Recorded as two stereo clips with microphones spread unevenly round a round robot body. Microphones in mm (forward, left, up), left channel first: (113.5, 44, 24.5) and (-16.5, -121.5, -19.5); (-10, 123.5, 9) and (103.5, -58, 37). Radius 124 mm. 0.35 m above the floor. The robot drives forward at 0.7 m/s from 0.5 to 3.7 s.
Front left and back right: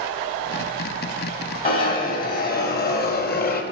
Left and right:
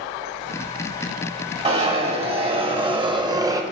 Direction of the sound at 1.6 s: 5° left.